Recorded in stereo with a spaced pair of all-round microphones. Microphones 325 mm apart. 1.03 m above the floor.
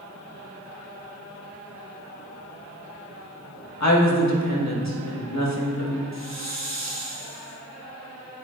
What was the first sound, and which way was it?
A woman speaking, 55° left (ahead or behind).